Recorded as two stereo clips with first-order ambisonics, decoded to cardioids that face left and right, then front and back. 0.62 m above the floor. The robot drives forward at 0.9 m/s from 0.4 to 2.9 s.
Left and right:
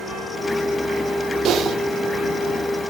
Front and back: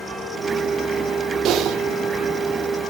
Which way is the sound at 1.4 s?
140° right.